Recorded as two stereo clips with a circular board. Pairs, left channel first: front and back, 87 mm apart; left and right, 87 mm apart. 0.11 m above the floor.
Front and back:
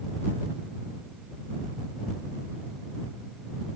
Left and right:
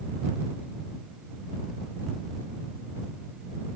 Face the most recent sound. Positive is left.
No sound to turn to.